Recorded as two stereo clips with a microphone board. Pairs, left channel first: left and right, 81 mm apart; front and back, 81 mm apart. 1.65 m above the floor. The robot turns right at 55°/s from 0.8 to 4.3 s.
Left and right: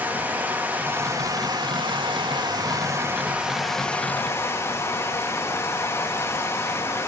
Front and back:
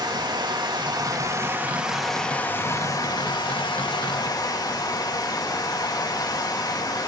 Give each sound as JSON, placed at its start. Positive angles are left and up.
{"t": 0.0, "sound": "running water", "azimuth_deg": -155, "distance_m": 2.5}